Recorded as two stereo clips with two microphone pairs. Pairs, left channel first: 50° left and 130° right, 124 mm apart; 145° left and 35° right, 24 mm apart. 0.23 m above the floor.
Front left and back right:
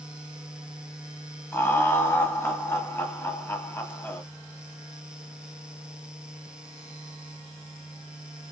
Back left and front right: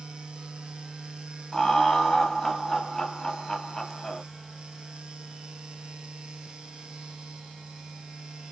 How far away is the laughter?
About 1.0 m.